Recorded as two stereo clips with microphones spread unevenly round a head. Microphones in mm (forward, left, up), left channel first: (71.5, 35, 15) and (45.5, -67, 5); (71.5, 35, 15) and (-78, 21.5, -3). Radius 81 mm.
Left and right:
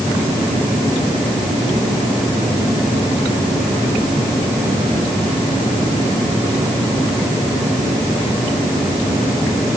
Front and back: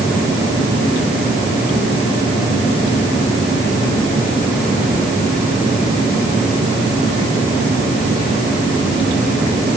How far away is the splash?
No splash in this recording.